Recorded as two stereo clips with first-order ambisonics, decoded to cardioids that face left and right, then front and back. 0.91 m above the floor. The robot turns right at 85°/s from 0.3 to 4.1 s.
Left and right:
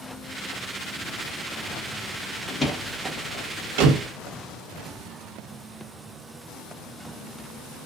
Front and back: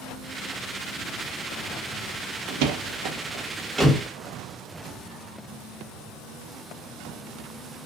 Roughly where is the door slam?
Behind left.